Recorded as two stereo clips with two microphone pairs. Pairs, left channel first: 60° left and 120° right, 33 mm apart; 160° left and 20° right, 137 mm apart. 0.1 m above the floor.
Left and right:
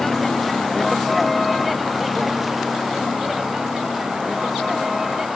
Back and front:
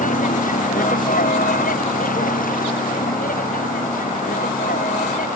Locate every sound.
0.0 s a vehicle: 145° left; by 5.4 s 160° left